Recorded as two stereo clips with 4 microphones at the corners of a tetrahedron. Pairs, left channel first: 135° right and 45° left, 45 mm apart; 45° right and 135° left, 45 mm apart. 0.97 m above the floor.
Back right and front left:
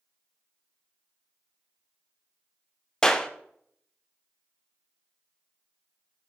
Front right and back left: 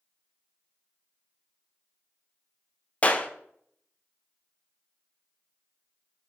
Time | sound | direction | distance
3.0 | a clap | 70° right | 0.6 m